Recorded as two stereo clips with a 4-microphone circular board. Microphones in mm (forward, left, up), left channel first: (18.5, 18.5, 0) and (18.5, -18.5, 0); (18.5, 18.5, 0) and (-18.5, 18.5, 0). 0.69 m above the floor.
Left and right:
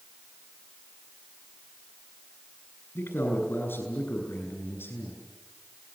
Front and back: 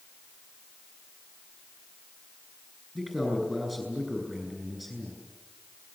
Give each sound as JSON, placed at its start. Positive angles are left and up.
{"t": 3.0, "sound": "a man speaking", "azimuth_deg": 95, "distance_m": 9.5}